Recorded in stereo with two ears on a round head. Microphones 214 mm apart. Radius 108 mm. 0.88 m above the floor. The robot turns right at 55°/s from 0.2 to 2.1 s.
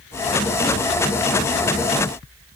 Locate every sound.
Only background noise.